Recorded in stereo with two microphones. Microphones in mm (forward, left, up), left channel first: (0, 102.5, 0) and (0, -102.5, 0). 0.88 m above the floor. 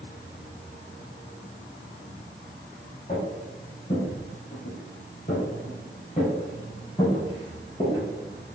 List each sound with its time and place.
3.1 s footsteps: 35° left (ahead or behind), 1.8 m; by 8.0 s 20° left (ahead or behind), 2 m